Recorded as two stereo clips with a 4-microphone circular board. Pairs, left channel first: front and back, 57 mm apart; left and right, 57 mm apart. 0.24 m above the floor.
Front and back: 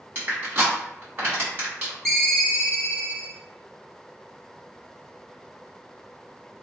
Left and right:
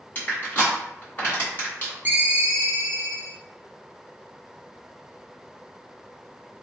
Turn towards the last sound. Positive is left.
turn(degrees=-80)